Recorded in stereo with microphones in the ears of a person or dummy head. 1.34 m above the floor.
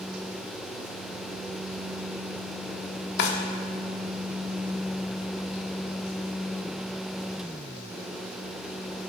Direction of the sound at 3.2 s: 65° left (ahead or behind).